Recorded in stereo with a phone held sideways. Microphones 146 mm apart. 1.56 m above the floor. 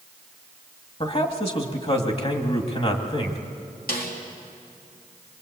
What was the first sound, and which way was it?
A man speaking, 40° left (ahead or behind).